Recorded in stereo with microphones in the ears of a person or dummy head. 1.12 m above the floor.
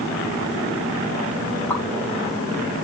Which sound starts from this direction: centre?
A pop, at 1.7 s.